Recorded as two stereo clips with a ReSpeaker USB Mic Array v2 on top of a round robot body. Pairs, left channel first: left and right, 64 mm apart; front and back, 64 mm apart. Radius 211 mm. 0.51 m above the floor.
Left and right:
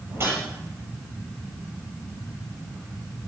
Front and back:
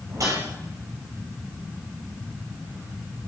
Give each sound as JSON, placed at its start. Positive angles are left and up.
{"t": 0.1, "sound": "a whoosh", "azimuth_deg": -140, "distance_m": 7.0}